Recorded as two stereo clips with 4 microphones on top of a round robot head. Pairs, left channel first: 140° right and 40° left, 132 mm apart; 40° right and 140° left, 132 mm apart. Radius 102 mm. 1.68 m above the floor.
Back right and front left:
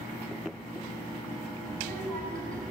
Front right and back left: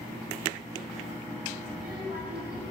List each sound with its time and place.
1.7 s a child speaking: 55° left, 6 m